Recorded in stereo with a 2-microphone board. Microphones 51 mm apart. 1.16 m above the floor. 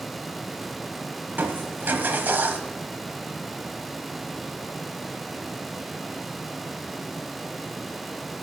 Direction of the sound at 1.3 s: 40° right (ahead or behind).